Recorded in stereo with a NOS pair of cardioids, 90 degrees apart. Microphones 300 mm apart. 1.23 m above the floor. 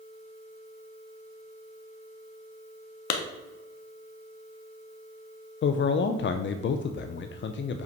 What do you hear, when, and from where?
3.1 s a clap: 70° left, 1.4 m
5.6 s a man speaking: 40° left, 0.6 m